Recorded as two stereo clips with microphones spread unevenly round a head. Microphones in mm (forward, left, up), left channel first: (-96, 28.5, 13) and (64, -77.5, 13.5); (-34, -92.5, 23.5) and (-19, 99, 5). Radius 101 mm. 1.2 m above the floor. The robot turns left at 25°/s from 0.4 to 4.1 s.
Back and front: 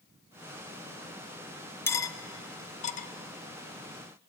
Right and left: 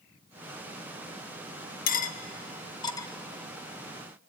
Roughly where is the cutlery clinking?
Behind right.